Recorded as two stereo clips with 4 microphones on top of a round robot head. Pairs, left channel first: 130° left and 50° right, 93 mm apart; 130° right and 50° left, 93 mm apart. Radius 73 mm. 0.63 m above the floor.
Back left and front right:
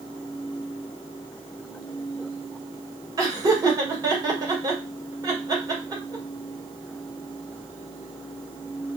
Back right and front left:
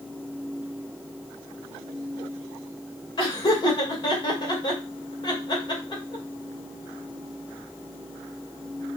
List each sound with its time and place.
3.2 s laughter: 95° right, 2.5 m